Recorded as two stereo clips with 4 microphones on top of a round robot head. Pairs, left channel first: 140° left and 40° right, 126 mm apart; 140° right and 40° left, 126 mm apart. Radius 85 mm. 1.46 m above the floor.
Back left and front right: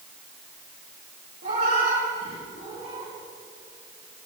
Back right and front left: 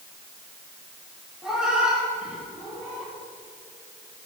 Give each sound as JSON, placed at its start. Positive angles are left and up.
{"t": 1.4, "sound": "a cat meowing", "azimuth_deg": -45, "distance_m": 7.5}